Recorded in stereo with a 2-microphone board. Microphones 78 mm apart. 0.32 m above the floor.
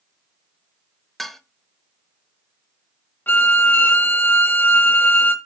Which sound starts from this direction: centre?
Dishes clattering, at 1.2 s.